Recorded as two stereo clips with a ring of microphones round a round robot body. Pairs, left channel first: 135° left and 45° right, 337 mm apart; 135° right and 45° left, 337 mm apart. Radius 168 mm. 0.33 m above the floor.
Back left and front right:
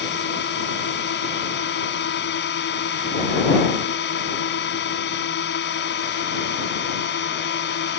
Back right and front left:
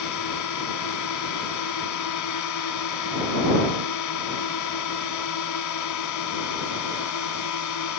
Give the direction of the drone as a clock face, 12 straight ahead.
6 o'clock.